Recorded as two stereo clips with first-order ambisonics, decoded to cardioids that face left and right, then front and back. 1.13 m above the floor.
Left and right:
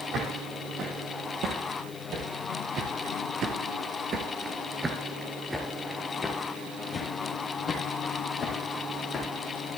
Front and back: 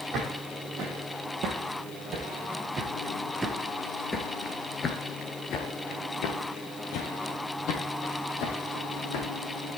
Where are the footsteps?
130° right, 3 m; by 9.3 s 25° left, 3 m.